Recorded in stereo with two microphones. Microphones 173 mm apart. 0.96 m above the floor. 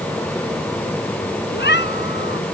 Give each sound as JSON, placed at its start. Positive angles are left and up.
{"t": 1.5, "sound": "a cat meowing", "side_deg": 85}